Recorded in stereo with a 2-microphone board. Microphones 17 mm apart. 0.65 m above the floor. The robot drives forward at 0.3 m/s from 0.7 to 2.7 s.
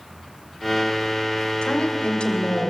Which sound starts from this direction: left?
A woman speaking, at 1.6 s.